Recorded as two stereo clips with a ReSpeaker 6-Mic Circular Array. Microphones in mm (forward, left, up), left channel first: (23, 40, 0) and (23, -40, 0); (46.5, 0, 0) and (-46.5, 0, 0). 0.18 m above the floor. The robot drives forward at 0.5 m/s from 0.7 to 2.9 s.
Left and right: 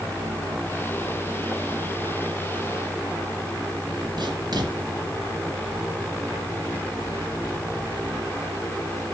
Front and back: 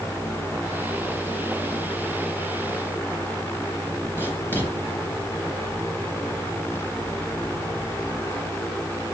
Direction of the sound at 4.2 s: 65° right.